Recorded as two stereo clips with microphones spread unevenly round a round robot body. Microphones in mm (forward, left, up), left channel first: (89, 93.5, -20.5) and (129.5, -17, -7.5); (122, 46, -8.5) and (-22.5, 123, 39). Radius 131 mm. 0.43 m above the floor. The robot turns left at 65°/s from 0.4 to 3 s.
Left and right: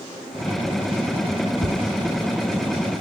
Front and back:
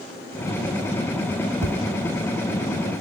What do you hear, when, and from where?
1.6 s tapping: 165° left, 1.3 m; by 1.8 s 155° left, 1.3 m